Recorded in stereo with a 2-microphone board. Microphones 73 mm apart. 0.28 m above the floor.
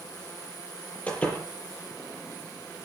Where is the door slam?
20° left (ahead or behind), 7 m.